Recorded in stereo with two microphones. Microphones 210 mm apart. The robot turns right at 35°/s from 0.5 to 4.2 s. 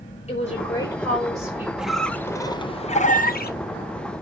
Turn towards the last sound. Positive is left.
turn(degrees=80)